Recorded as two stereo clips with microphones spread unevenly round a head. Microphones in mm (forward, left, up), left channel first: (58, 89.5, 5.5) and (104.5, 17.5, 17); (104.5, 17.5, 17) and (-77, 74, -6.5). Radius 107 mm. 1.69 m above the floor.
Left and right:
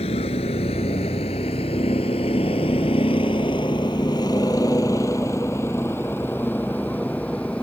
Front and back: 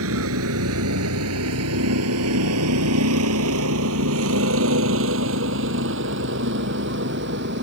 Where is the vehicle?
160° left; by 7.6 s 155° right.